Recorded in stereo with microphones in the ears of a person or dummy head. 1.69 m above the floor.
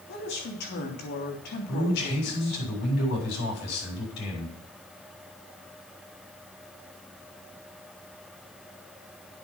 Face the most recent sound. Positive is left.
turn(degrees=60)  # may be behind; listen again after turning